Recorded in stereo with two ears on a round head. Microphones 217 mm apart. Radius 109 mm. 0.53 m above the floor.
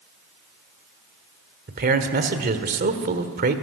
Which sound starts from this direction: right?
A man speaking, at 1.7 s.